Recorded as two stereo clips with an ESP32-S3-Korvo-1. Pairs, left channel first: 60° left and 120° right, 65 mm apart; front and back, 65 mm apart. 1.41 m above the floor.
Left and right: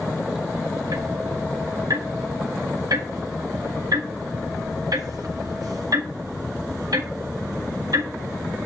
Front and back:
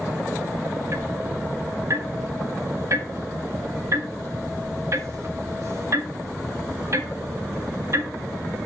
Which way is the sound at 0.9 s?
140° right.